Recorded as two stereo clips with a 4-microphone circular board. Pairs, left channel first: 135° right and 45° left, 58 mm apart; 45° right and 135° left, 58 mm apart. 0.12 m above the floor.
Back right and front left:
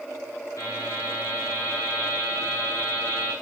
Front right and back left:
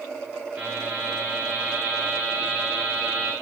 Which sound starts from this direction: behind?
A buzzer, at 0.6 s.